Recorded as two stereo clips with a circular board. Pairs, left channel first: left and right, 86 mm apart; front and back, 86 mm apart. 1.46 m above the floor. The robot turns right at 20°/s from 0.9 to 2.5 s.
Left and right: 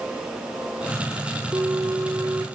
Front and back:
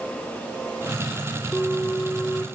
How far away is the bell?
About 1.4 m.